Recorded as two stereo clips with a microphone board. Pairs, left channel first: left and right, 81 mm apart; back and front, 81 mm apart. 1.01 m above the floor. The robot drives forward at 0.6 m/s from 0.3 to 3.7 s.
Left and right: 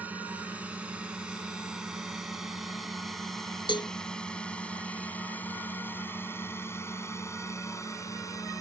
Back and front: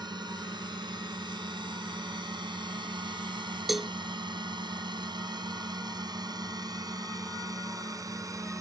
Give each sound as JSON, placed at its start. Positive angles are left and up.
{"t": 0.0, "sound": "a drone", "azimuth_deg": -20}
{"t": 3.7, "sound": "a cowbell", "azimuth_deg": 90}